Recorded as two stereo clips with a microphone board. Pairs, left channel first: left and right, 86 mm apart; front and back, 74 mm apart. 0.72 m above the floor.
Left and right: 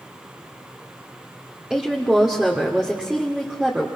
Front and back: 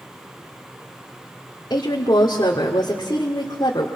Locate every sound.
1.7 s a woman speaking: 10° right, 2 m